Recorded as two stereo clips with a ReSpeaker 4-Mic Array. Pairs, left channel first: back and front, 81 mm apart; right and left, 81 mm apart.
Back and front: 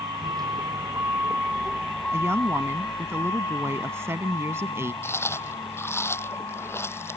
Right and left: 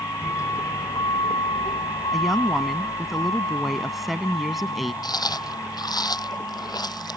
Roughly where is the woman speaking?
Ahead.